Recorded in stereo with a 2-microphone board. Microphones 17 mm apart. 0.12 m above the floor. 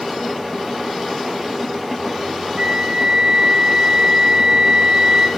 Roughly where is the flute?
Right.